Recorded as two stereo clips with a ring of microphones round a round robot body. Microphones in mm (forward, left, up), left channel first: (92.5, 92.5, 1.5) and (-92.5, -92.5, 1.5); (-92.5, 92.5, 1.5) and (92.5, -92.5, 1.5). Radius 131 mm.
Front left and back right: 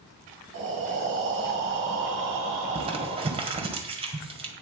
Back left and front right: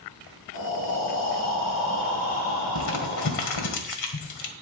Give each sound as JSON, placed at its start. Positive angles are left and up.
{"t": 0.5, "sound": "breathing", "azimuth_deg": 180, "distance_m": 4.0}
{"t": 2.8, "sound": "crumpling", "azimuth_deg": 155, "distance_m": 1.8}